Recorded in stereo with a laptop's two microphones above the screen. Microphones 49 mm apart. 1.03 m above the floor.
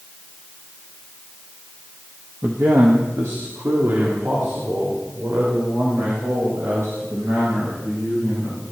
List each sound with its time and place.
2.4 s a man speaking: 60° right (ahead or behind), 1.2 m; by 8.6 s 85° right, 8.5 m